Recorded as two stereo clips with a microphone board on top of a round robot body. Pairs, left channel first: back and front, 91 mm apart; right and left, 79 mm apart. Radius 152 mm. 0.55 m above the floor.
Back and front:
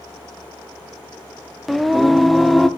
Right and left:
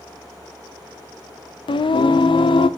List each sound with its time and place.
1.7 s singing: 90° right, 0.6 m